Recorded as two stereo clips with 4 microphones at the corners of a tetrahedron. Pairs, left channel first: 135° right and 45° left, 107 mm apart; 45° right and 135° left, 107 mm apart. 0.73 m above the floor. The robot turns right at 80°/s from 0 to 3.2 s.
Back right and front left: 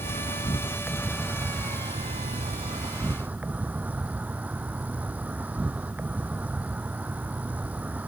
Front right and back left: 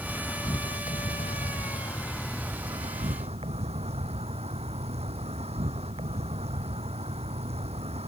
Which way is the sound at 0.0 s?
135° right.